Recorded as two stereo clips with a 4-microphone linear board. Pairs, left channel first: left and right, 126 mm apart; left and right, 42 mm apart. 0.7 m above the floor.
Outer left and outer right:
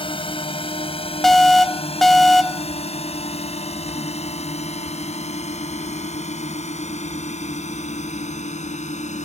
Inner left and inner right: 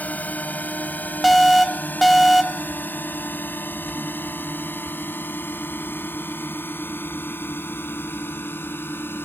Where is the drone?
45° left (ahead or behind); by 9.2 s 65° left (ahead or behind).